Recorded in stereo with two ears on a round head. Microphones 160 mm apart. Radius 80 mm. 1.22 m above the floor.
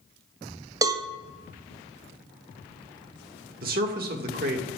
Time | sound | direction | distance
0.8 | a cowbell | 20° right (ahead or behind) | 0.6 m
3.6 | a man speaking | 55° right (ahead or behind) | 1.6 m